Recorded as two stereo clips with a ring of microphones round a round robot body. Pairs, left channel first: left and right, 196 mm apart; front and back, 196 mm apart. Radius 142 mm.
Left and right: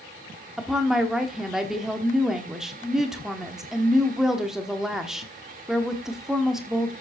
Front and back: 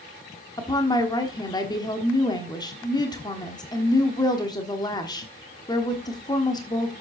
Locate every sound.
0.6 s a woman speaking: 5° right, 1.3 m